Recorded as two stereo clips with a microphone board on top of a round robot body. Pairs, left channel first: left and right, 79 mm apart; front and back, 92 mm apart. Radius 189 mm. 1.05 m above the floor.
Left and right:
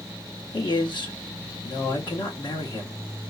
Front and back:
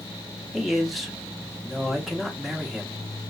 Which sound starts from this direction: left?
A man speaking, at 0.5 s.